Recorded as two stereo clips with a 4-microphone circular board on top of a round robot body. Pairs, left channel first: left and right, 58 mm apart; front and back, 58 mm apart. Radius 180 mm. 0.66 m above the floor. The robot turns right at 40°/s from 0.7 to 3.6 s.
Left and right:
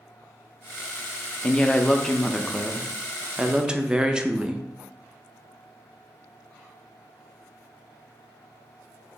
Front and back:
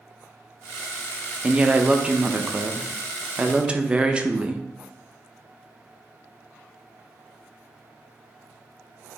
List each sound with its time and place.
1.4 s a woman speaking: 130° left, 0.6 m; by 4.6 s 140° right, 0.6 m